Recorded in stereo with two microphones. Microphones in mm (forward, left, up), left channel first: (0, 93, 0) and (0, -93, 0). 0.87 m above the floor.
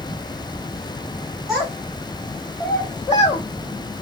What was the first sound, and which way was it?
A child speaking, centre (ahead or behind).